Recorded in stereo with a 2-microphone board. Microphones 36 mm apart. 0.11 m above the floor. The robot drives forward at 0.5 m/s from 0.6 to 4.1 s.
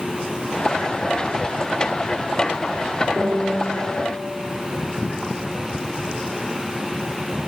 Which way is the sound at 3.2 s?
45° left (ahead or behind).